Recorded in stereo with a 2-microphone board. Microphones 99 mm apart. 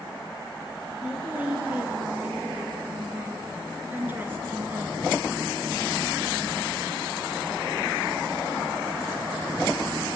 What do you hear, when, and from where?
1.0 s a woman speaking: 15° right (ahead or behind), 3.5 m; by 5.0 s 25° right (ahead or behind), 1.4 m